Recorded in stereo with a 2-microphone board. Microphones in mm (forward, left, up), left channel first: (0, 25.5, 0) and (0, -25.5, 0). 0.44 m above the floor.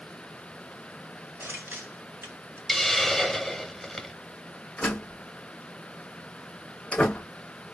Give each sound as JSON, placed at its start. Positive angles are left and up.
{"t": 1.4, "sound": "crushing", "side_deg": -60, "distance_m": 2.5}
{"t": 2.7, "sound": "a hiss", "side_deg": 5, "distance_m": 0.6}
{"t": 4.8, "sound": "a door slam", "side_deg": 25, "distance_m": 1.1}